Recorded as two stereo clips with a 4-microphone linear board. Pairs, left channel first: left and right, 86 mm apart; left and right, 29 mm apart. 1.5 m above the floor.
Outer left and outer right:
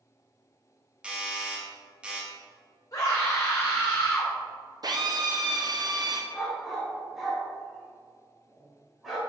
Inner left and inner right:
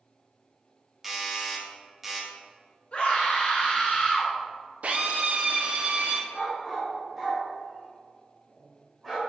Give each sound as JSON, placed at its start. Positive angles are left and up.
{"t": 1.0, "sound": "a doorbell", "side_deg": -15, "distance_m": 0.9}
{"t": 2.9, "sound": "a scream", "side_deg": 40, "distance_m": 1.6}
{"t": 4.8, "sound": "a drill", "side_deg": -50, "distance_m": 0.6}
{"t": 6.3, "sound": "a dog barking", "side_deg": 0, "distance_m": 1.4}